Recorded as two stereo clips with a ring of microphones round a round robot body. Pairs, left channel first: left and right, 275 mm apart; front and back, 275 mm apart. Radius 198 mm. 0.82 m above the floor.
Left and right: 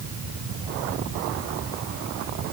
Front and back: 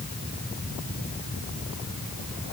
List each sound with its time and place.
Only background noise.